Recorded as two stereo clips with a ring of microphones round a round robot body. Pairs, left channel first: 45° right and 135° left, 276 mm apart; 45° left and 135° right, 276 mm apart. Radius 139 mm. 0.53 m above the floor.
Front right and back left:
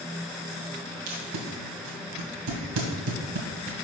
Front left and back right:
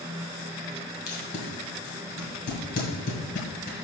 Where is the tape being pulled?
105° left, 2 m.